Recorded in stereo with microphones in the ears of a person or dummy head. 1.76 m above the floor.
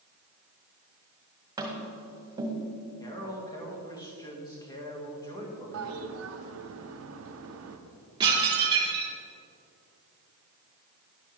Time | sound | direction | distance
1.6 | tapping | 25° right (ahead or behind) | 1.9 m
3.0 | a man speaking | 15° left (ahead or behind) | 2 m
5.7 | a toilet flushing | 70° right (ahead or behind) | 0.9 m
8.2 | dishes clattering | 25° right (ahead or behind) | 2.5 m